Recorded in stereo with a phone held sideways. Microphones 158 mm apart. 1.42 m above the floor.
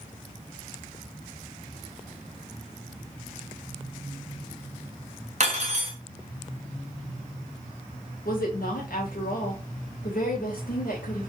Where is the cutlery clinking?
50° right (ahead or behind), 1.3 m.